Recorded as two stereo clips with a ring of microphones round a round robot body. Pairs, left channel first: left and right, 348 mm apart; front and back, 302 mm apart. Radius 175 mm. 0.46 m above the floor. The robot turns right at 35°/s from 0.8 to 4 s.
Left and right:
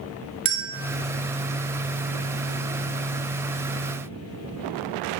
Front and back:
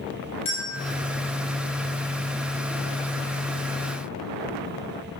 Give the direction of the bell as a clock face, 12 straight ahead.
3 o'clock.